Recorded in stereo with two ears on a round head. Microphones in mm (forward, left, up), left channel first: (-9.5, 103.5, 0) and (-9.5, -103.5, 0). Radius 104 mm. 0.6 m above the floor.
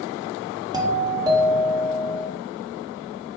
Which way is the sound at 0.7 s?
15° right (ahead or behind).